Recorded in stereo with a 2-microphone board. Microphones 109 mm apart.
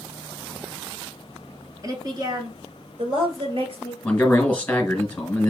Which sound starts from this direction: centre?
A man speaking, at 4.0 s.